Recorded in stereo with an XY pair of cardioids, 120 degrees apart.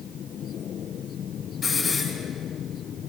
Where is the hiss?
30° left, 6 m.